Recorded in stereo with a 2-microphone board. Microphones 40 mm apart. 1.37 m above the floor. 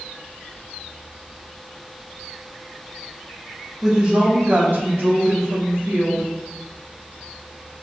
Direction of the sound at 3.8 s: 10° right (ahead or behind).